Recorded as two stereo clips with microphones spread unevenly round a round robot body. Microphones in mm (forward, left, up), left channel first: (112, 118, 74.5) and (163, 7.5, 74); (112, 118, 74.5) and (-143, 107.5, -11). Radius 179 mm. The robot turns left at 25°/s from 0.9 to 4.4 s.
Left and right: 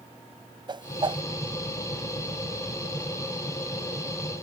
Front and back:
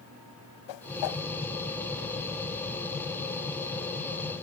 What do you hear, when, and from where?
0.7 s a whoosh: 15° right; by 1.2 s 25° right